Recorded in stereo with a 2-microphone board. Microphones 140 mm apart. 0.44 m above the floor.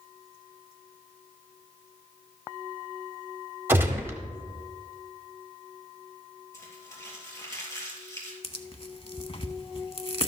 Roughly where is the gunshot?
Centre.